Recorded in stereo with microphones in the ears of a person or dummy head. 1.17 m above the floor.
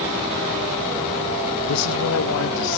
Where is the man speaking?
80° left; by 2.8 s 75° left (ahead or behind).